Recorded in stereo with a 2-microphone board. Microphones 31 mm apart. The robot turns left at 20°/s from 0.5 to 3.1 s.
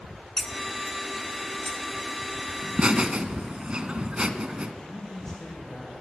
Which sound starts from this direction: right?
Laughter, at 2.6 s.